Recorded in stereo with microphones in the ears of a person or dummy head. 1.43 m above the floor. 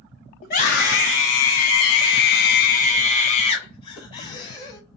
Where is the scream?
45° left (ahead or behind), 1.2 m; by 4.8 s 25° left (ahead or behind), 2 m.